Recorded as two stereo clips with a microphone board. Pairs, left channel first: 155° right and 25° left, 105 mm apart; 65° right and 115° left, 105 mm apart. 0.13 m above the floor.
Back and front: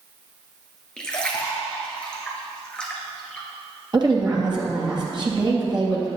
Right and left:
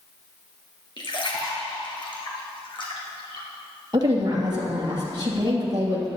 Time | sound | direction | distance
1.0 | a splash | 75° right | 2.5 m
3.9 | a woman speaking | 65° left | 3 m